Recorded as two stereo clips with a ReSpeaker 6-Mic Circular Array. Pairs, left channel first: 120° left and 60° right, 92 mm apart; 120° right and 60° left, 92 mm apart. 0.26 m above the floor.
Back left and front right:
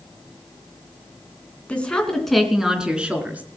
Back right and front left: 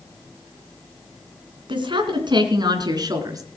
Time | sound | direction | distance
1.7 | a woman speaking | 45° left | 3 m